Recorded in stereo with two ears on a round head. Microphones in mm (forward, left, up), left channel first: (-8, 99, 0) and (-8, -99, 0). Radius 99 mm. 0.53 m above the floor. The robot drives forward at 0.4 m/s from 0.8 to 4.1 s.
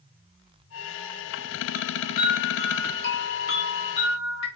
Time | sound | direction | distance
1.7 | a chime | 40° left (ahead or behind) | 1.9 m